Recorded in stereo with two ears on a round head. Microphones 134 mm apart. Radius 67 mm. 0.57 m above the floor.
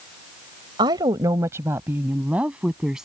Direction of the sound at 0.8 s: 30° right (ahead or behind).